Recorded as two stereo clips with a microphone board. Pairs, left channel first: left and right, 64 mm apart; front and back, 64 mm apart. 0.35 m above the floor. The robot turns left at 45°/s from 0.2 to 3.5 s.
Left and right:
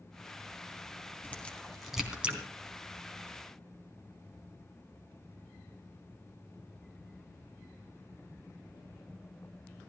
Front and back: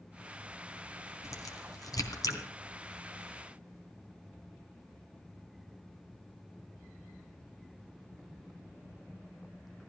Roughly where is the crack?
Ahead left.